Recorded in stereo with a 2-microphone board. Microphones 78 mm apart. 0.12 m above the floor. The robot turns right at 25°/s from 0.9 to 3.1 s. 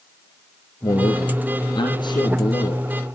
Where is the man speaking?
60° left, 4 m; by 2.8 s 105° left, 4 m.